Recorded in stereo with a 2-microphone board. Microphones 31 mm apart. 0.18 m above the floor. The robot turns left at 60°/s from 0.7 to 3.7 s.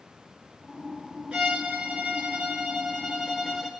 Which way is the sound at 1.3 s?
30° right.